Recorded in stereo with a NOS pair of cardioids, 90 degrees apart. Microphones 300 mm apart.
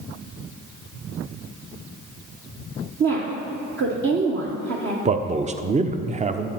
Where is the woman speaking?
45° right, 1.4 m.